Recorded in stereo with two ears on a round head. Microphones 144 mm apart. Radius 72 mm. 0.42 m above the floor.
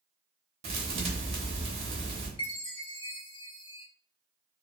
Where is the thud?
40° right (ahead or behind), 0.8 m.